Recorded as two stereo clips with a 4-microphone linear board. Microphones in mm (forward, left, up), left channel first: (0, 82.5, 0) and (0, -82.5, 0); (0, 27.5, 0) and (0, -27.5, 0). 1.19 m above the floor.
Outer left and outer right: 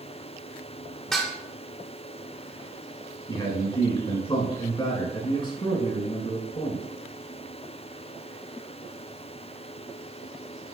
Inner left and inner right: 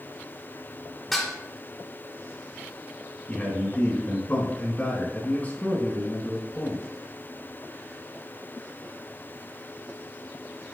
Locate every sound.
1.1 s dishes clattering: 5° left (ahead or behind), 2.5 m
3.3 s a man speaking: 30° left (ahead or behind), 4 m